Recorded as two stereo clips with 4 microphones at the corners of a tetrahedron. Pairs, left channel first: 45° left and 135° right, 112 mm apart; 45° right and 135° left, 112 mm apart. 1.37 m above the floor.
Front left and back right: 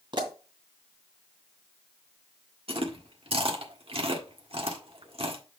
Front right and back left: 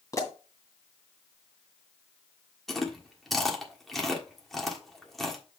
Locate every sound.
0.1 s a pop: 100° right, 2 m
2.7 s chewing: 130° right, 1.4 m